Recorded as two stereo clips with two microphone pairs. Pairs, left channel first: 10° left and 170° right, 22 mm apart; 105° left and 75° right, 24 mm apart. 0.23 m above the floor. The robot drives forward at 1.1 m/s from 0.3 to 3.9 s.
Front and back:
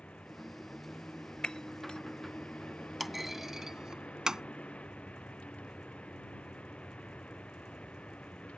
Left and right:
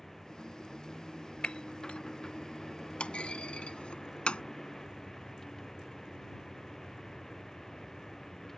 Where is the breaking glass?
60° left; by 2.0 s 65° left.